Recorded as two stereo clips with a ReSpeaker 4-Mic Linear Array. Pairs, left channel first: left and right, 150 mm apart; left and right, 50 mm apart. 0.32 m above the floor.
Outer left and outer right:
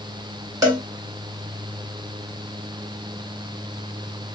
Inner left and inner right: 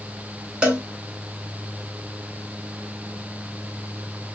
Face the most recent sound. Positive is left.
turn(degrees=-20)  # may be behind; listen again after turning